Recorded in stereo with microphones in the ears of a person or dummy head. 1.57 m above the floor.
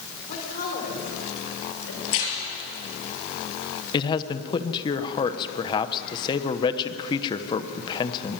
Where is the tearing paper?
75° left (ahead or behind), 5 m.